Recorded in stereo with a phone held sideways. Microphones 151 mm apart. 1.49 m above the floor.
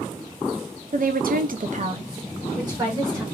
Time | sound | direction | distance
0.9 | a woman speaking | 60° right (ahead or behind) | 0.6 m